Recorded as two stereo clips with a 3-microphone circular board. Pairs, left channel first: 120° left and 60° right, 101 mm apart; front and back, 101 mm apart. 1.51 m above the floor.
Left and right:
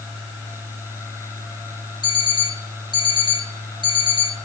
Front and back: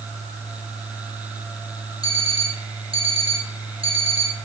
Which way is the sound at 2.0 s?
160° left.